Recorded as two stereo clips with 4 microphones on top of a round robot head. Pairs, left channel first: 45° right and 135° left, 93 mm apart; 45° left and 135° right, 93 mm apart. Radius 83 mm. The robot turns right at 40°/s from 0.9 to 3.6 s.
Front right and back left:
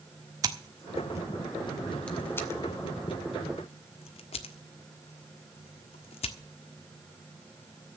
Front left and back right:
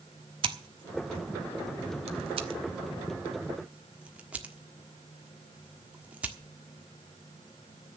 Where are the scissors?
170° right, 1.3 m; by 6.4 s 60° right, 1.3 m.